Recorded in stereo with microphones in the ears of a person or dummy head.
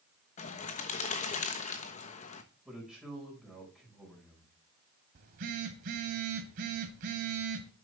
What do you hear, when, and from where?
0.4 s a bird: 40° left (ahead or behind), 1.2 m
2.6 s a man speaking: 5° right (ahead or behind), 5 m
5.2 s a phone buzzing: 55° right (ahead or behind), 1.8 m